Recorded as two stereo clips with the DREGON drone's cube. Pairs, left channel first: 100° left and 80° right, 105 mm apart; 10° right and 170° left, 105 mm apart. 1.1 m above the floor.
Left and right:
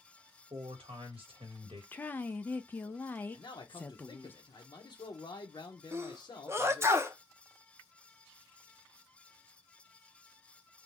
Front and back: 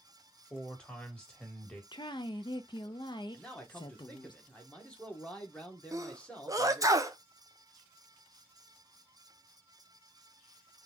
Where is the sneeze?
135° right, 0.6 m.